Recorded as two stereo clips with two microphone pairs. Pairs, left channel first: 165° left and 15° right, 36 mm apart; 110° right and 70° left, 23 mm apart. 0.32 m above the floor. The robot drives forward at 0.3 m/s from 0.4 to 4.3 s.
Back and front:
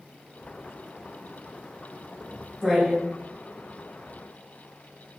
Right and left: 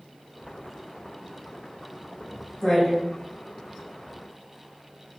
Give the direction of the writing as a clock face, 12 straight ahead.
2 o'clock.